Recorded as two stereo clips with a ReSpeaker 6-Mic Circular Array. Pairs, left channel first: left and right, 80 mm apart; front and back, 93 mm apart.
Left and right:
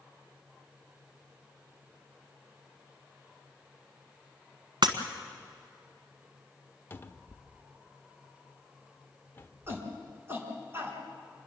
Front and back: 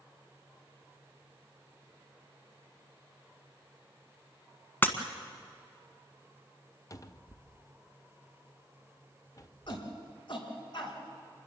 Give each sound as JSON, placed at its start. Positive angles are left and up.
{"t": 4.8, "sound": "breaking glass", "azimuth_deg": -70, "distance_m": 1.6}
{"t": 6.9, "sound": "a cupboard door", "azimuth_deg": 35, "distance_m": 0.7}
{"t": 9.7, "sound": "a shout", "azimuth_deg": -30, "distance_m": 4.5}